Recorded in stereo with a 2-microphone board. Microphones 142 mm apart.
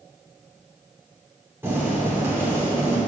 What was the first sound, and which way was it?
Boiling, 15° right (ahead or behind).